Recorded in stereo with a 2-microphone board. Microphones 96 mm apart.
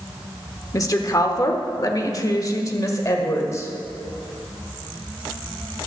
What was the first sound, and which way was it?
A woman speaking, 35° left (ahead or behind).